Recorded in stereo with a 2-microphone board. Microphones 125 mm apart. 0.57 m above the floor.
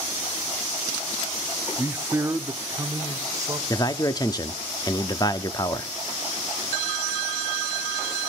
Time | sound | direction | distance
1.8 | a man speaking | 10° right (ahead or behind) | 0.7 m
3.7 | a man speaking | 30° left (ahead or behind) | 0.7 m